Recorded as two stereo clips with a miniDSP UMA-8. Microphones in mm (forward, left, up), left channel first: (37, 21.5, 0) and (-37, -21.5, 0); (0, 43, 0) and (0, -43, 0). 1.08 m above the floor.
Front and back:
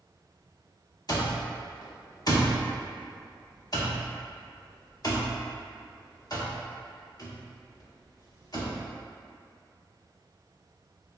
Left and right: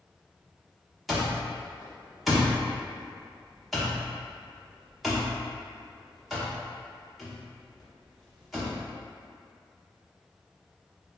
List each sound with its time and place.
1.1 s an alarm clock: straight ahead, 0.9 m